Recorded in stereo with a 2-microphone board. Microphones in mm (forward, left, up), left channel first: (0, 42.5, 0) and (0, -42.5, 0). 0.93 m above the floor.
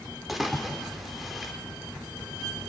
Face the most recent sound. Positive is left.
turn(degrees=0)  # may be behind; listen again after turning